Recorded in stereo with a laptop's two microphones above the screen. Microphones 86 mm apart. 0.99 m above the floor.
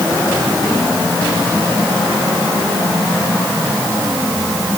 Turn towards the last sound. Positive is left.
No sound to turn to.